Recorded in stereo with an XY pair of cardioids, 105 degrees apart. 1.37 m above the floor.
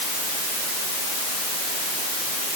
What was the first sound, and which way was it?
Only background noise.